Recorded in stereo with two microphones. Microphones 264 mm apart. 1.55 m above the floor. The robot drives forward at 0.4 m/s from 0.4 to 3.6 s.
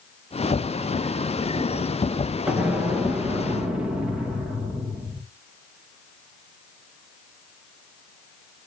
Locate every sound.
2.5 s an explosion: 5° right (ahead or behind), 1.6 m